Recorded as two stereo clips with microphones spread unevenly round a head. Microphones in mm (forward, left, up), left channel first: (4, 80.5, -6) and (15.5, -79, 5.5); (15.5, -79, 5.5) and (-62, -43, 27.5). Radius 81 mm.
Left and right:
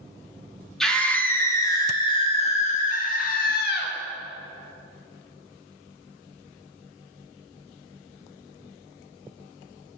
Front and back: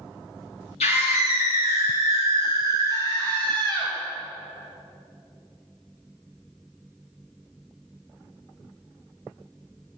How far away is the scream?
About 1.9 m.